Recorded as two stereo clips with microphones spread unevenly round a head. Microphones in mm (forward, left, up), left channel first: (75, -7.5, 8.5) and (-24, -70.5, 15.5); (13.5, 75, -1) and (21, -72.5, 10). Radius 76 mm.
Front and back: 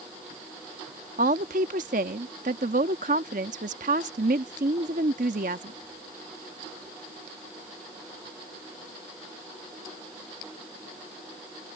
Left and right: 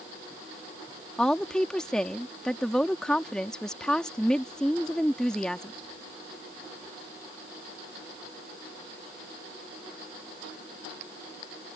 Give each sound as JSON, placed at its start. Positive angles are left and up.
{"t": 1.2, "sound": "a woman speaking", "azimuth_deg": 180}